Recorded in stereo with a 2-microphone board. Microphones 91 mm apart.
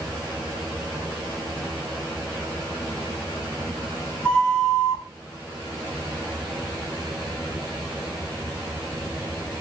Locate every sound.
4.2 s a flute: 10° left (ahead or behind), 1.3 m